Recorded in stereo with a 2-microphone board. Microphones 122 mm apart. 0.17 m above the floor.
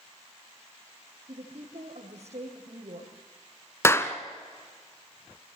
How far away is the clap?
About 1.3 m.